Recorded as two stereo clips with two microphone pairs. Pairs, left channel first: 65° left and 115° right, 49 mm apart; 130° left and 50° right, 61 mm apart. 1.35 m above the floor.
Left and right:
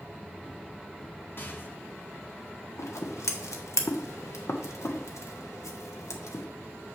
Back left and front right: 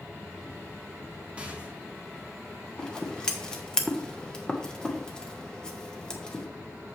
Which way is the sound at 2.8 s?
50° left.